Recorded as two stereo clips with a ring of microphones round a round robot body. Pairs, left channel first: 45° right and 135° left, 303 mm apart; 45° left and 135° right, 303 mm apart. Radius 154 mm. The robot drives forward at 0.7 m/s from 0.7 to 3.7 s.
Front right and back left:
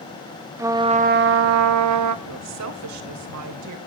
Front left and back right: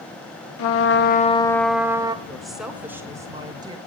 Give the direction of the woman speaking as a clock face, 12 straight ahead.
8 o'clock.